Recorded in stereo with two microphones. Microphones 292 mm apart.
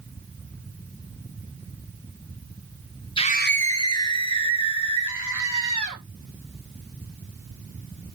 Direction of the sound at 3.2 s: 15° left (ahead or behind).